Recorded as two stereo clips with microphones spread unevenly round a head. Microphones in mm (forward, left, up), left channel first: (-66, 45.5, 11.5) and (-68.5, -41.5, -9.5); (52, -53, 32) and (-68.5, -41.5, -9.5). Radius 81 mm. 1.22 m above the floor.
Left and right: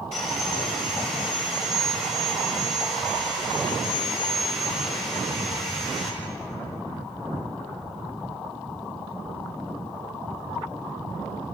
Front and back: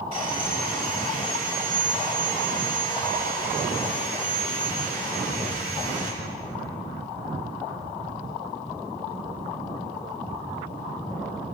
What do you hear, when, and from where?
0.1 s sawing: 55° left, 6 m